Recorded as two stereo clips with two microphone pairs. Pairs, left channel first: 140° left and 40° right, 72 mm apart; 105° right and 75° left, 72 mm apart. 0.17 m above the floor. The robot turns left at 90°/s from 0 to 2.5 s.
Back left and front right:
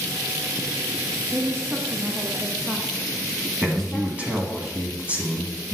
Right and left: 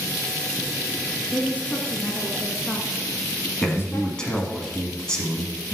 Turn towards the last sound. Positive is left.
turn(degrees=-45)